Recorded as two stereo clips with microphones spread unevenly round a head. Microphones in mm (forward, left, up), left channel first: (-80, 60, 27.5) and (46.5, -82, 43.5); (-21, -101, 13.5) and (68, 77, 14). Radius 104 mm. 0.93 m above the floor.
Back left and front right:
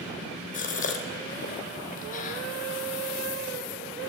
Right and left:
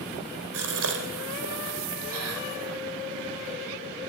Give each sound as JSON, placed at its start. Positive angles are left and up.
{"t": 0.5, "sound": "a gasp", "azimuth_deg": 80, "distance_m": 3.5}